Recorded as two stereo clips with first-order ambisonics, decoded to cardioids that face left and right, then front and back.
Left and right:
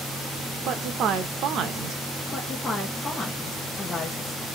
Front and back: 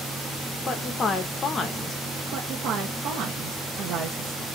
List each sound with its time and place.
0.7 s a woman speaking: 60° right, 0.6 m
2.3 s a woman speaking: 160° left, 0.7 m